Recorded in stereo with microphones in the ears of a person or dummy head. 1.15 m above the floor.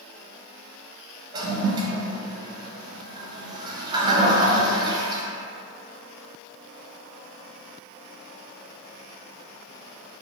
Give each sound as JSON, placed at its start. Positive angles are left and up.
{"t": 1.3, "sound": "a toilet flushing", "side_deg": -20, "distance_m": 0.6}